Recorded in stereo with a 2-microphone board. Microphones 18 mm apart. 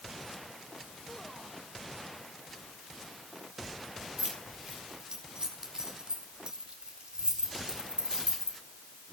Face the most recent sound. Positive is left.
turn(degrees=-70)  # may be behind; listen again after turning